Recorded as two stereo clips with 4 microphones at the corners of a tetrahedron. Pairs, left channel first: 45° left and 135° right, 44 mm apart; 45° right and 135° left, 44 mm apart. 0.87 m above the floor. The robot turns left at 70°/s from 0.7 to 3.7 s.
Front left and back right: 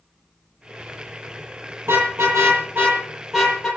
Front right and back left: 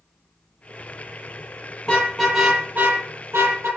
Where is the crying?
No crying in this recording.